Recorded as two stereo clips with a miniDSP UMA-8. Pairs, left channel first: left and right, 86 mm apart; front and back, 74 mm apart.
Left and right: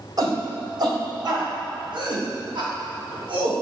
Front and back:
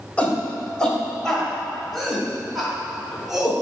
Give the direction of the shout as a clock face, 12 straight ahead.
2 o'clock.